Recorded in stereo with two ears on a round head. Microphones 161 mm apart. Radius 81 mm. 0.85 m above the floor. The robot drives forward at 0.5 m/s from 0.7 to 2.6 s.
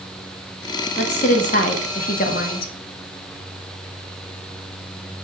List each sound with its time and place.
1.0 s a woman speaking: 40° left (ahead or behind), 1.5 m; by 2.7 s 55° left (ahead or behind), 1.1 m